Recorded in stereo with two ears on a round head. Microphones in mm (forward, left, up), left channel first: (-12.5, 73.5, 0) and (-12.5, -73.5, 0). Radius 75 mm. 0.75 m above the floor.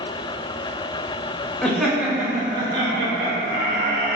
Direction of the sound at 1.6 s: 5° left (ahead or behind).